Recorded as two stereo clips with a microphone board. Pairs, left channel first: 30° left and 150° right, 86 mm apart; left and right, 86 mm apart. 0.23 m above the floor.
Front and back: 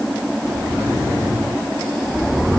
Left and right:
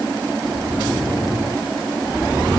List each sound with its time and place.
Only background noise.